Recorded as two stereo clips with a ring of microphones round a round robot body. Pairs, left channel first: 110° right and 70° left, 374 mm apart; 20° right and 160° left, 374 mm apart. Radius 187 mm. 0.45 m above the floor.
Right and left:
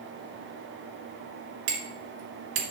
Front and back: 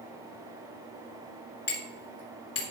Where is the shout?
I don't hear a shout.